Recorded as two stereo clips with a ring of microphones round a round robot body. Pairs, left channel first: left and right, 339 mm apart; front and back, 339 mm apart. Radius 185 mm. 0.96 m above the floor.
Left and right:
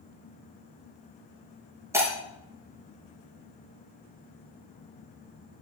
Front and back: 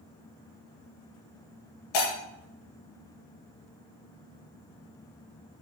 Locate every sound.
1.9 s breaking glass: 10° right, 5 m